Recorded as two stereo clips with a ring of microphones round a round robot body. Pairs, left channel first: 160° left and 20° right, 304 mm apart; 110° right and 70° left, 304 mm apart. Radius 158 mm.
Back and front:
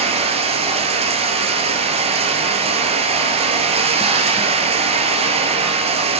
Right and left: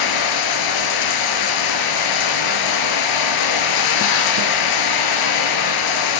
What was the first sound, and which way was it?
Running water, 95° right.